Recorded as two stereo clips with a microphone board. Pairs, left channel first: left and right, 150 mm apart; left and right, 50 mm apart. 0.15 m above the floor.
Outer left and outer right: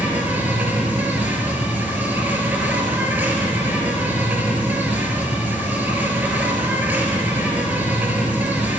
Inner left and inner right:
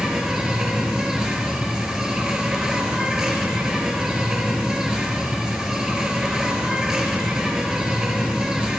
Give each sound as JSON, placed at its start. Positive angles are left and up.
{"t": 0.0, "sound": "an insect", "side_deg": -10, "distance_m": 1.4}